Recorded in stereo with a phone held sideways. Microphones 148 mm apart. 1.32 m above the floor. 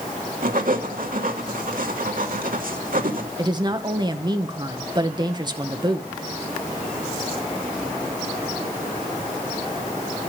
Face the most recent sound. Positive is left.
turn(degrees=-30)  # may be behind; listen again after turning